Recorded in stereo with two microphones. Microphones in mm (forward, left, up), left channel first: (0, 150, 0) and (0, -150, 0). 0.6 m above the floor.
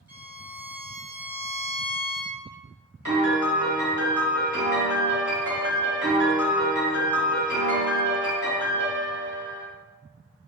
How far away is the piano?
About 1.1 m.